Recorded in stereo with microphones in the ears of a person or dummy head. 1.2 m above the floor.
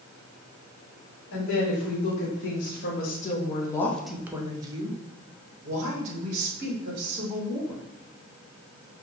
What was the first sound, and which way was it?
A woman speaking, 70° left (ahead or behind).